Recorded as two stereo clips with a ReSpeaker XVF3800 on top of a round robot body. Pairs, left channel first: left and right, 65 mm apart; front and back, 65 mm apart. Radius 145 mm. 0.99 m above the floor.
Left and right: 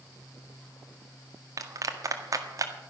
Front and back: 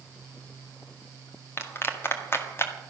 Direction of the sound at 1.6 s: 55° right.